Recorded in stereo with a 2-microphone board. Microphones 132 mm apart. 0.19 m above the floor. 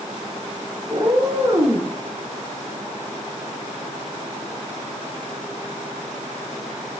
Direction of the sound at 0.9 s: 35° right (ahead or behind).